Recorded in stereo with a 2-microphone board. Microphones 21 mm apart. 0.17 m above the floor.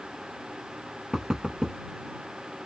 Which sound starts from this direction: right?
Knocking, at 1.1 s.